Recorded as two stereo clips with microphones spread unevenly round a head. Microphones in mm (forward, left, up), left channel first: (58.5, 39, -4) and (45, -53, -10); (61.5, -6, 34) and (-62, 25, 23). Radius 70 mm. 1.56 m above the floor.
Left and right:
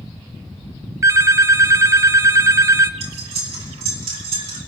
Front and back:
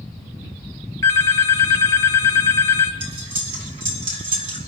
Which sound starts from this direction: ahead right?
A phone ringing, at 1.0 s.